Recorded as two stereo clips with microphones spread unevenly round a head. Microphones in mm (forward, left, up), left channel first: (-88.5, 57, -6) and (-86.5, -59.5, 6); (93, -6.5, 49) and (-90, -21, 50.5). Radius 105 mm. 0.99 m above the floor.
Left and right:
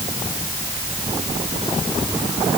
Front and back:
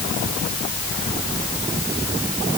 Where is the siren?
I don't hear a siren.